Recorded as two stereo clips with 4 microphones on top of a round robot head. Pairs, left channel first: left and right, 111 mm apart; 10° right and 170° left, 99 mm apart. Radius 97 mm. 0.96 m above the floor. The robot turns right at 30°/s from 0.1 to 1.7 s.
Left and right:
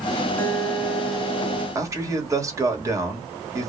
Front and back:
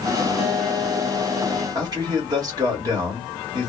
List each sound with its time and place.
0.4 s a guitar: 165° left, 1.6 m; by 1.6 s 160° right, 1.6 m
1.8 s a man speaking: 150° right, 1.4 m